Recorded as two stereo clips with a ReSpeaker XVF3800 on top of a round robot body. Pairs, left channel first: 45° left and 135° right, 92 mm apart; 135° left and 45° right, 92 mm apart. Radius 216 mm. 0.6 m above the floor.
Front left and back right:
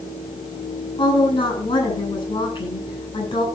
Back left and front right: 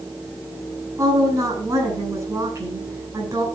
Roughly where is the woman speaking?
Ahead.